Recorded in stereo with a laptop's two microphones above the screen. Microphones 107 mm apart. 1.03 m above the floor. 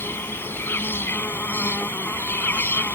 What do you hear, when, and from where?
0.0 s an insect: 20° left (ahead or behind)